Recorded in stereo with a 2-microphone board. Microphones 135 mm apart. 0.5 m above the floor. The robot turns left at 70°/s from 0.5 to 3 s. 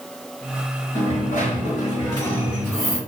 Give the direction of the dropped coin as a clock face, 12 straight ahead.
8 o'clock.